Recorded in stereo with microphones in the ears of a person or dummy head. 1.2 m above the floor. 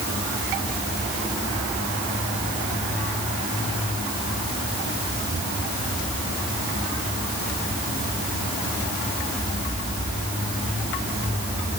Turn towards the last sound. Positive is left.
No sound to turn to.